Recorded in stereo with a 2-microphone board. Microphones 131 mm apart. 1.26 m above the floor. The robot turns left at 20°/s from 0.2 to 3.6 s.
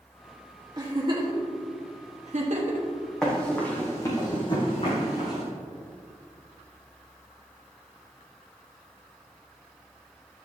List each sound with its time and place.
0.8 s a giggle: 30° right (ahead or behind), 1.3 m; by 2.9 s 70° right (ahead or behind), 1.3 m
3.2 s running footsteps: 5° left (ahead or behind), 2.5 m; by 5.4 s 60° left (ahead or behind), 3.5 m